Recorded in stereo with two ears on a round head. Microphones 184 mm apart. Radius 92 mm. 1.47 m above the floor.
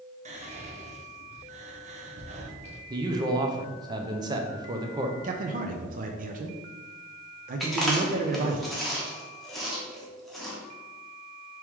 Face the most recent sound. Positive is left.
turn(degrees=0)  # may be behind; listen again after turning